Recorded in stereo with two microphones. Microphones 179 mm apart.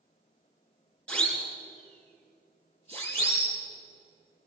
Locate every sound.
1.1 s a siren: 5° left (ahead or behind), 5 m; by 3.6 s 15° left (ahead or behind), 7 m